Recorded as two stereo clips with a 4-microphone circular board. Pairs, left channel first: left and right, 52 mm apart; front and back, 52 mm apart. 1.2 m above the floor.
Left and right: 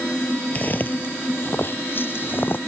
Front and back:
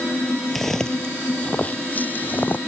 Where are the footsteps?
85° left; by 2.6 s 50° left.